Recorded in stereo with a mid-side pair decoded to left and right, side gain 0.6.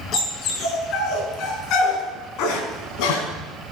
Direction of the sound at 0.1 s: 50° left.